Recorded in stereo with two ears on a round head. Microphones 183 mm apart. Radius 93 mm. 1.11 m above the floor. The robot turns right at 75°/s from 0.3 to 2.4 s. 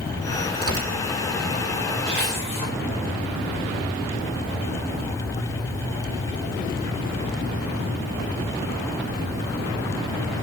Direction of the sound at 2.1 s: 5° left (ahead or behind).